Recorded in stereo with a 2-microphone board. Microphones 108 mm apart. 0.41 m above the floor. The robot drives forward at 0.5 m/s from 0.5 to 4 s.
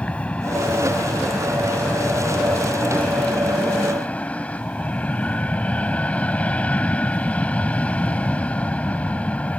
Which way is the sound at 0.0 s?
10° left (ahead or behind).